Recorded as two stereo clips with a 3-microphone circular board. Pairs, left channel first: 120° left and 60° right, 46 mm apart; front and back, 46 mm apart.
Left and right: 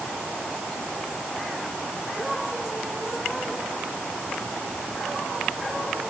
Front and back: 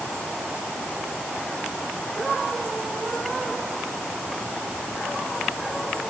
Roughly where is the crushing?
I don't hear crushing.